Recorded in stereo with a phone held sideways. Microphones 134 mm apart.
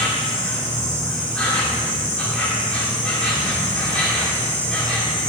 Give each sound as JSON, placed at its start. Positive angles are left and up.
{"t": 0.0, "sound": "an insect", "side_deg": 10, "distance_m": 2.5}